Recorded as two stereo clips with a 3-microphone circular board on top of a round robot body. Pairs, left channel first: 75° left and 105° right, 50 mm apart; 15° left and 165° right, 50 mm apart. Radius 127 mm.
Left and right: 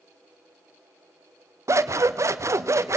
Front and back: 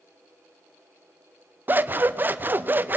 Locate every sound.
1.7 s scissors: 115° right, 1.0 m